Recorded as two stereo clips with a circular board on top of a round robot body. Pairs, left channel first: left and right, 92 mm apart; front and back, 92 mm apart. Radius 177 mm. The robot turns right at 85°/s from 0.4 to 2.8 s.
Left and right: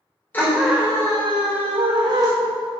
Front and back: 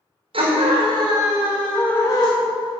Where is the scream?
160° left, 3 m; by 2.3 s 35° right, 3 m.